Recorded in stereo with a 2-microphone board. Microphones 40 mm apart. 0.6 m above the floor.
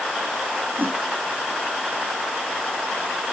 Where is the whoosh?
70° right (ahead or behind).